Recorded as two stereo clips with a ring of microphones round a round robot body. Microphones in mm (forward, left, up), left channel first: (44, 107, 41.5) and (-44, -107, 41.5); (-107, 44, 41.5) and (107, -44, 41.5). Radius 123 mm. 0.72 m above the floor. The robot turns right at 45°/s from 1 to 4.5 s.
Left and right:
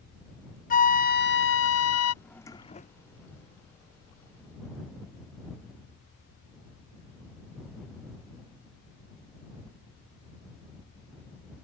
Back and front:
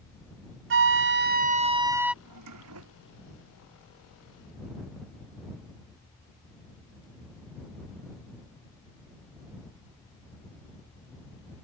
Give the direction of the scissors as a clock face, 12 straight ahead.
I don't hear scissors.